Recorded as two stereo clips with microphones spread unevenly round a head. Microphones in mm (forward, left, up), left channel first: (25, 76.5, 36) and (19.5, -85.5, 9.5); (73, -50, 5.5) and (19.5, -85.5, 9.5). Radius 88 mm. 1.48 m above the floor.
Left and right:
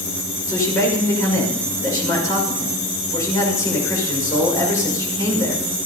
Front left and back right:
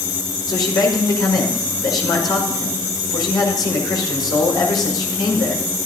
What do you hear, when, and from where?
0.5 s a man speaking: 20° left, 5.5 m